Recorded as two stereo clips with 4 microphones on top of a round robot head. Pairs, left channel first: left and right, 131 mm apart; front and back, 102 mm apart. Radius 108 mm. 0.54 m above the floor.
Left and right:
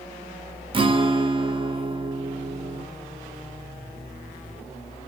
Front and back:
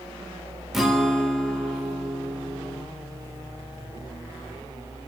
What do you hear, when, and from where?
0.7 s a guitar: 90° right, 0.7 m